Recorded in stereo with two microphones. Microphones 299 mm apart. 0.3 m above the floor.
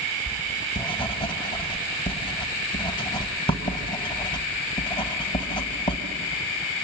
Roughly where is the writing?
Centre.